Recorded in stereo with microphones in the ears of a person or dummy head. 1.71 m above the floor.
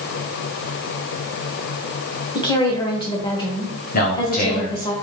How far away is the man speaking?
About 1.0 m.